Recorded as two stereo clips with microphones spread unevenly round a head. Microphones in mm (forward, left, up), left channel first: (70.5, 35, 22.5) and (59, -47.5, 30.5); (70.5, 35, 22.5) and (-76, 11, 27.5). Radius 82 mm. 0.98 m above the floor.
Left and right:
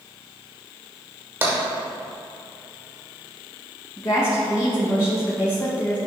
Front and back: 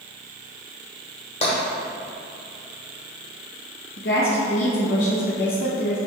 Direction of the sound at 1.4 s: 40° right.